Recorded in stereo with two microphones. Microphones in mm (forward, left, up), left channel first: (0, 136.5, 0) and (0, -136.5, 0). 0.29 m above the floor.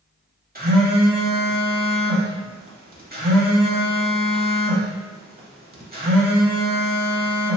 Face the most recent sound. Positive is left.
turn(degrees=-35)  # may be behind; listen again after turning